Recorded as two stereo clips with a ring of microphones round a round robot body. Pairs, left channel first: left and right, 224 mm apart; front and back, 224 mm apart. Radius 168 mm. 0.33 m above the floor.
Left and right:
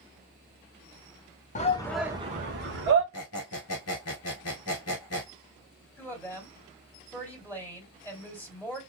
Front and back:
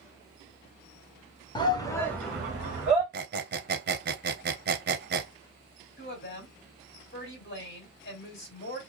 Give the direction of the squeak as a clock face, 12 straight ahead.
8 o'clock.